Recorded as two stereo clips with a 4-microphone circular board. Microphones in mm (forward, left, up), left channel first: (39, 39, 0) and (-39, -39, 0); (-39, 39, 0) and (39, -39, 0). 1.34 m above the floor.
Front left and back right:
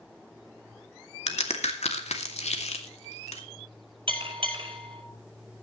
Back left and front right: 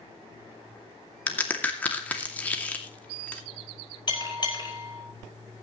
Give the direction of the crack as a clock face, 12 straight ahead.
10 o'clock.